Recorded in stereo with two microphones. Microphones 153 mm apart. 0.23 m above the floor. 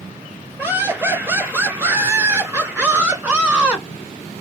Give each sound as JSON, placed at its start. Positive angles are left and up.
{"t": 0.6, "sound": "laughter", "side_deg": -15, "distance_m": 4.0}